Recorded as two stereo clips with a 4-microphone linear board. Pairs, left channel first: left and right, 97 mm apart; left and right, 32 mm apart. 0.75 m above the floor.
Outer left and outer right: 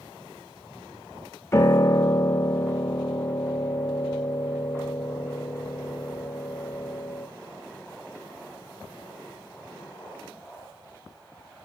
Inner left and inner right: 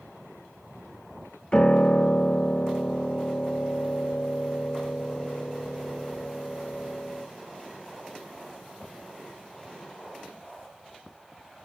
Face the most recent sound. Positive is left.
turn(degrees=30)  # may be behind; listen again after turning